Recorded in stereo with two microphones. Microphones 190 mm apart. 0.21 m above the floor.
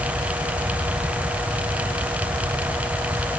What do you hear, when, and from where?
Only background noise.